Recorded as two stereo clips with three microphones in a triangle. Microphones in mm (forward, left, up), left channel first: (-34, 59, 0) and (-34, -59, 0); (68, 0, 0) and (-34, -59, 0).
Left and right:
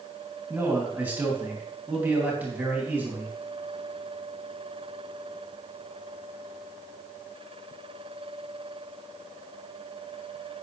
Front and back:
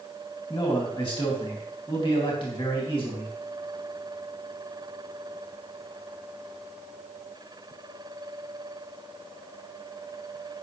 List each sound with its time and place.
0.5 s a man speaking: 15° right, 2.5 m